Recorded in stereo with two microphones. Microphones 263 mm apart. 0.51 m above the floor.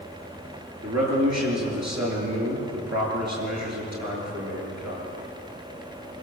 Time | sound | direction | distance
0.8 | a man speaking | 80° right | 7.5 m